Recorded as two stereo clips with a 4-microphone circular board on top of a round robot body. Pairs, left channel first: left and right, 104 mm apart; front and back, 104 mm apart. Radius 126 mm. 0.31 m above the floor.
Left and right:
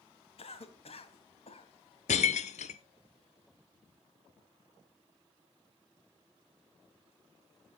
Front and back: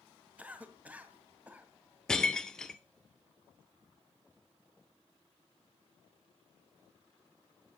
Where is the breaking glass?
85° left, 0.6 m.